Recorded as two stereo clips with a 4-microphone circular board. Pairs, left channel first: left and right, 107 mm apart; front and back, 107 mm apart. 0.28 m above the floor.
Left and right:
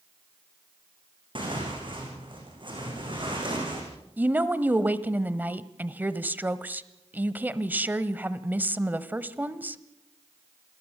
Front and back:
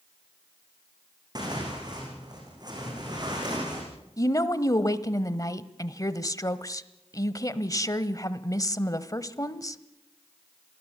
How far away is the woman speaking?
About 1.1 m.